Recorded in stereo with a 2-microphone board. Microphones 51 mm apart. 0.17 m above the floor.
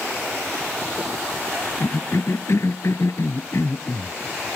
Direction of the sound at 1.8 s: 65° left (ahead or behind).